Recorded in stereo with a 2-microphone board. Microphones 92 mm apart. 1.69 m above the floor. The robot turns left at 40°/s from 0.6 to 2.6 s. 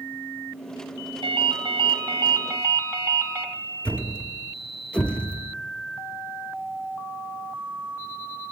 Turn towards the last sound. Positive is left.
turn(degrees=15)  # may be behind; listen again after turning